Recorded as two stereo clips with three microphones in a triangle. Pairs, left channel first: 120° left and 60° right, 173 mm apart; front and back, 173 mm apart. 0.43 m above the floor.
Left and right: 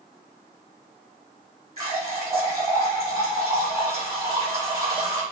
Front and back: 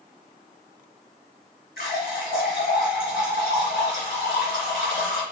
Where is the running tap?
15° right, 2 m.